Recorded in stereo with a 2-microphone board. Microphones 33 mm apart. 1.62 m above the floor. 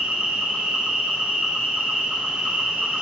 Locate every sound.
0.0 s an insect: 40° right (ahead or behind), 0.7 m